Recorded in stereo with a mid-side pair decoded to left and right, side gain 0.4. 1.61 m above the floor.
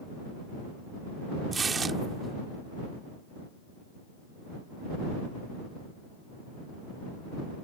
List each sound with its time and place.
1.5 s tearing paper: 45° right